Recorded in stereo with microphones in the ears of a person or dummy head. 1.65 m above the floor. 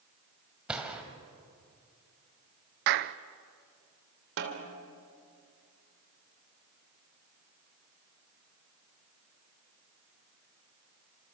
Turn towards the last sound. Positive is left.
turn(degrees=-70)  # may be behind; listen again after turning